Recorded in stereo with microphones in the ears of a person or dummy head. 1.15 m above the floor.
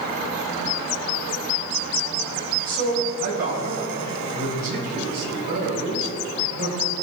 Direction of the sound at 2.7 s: 50° right (ahead or behind).